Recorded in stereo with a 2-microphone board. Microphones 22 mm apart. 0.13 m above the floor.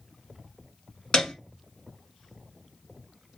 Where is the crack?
I don't hear a crack.